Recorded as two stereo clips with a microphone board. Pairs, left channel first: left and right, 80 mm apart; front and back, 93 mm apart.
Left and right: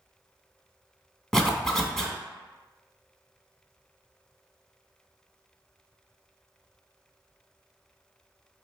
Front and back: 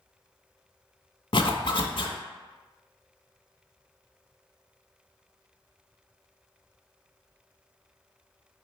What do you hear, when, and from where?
1.3 s a zipper: 5° left, 0.7 m